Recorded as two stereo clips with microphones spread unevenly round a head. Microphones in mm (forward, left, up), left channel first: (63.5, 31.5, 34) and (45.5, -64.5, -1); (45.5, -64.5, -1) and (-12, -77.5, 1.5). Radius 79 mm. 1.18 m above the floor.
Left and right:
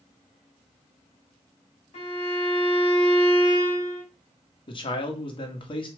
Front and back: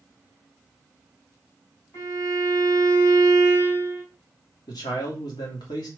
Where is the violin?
70° left, 3 m.